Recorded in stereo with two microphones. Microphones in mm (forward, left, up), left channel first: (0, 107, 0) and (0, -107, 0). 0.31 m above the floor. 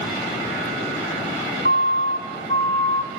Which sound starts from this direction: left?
A siren, at 1.6 s.